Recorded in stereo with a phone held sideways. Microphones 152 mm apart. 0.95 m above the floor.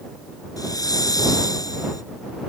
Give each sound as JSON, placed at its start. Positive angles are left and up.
{"t": 0.6, "sound": "a hiss", "side_deg": 25}